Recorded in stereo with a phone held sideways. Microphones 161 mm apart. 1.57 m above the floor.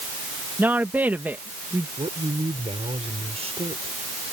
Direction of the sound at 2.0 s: 40° right (ahead or behind).